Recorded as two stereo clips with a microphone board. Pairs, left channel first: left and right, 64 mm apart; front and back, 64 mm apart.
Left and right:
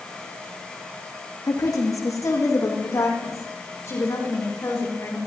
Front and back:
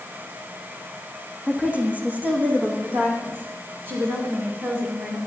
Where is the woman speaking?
110° left, 4 m; by 5.2 s 135° left, 6 m.